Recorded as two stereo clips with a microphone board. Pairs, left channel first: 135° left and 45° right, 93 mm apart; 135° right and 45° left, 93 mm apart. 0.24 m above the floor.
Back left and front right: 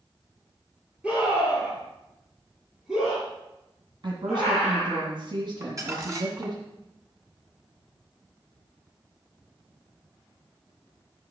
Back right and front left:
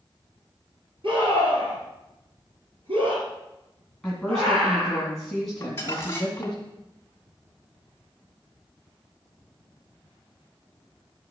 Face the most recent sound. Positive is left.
turn(degrees=-85)